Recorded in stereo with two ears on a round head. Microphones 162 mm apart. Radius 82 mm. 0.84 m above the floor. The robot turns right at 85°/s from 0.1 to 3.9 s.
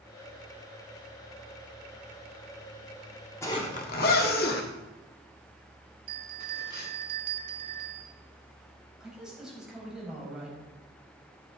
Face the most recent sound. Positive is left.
turn(degrees=-5)  # may be behind; listen again after turning